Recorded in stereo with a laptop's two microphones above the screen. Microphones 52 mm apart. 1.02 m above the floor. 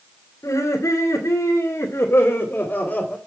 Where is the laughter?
75° left (ahead or behind), 2.5 m; by 3.2 s 25° left (ahead or behind), 3 m.